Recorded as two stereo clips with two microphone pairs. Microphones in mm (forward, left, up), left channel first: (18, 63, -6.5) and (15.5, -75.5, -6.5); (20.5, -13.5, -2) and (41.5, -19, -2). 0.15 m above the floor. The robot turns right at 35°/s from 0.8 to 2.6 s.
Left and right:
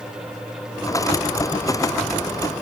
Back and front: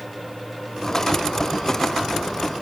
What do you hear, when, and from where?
Only background noise.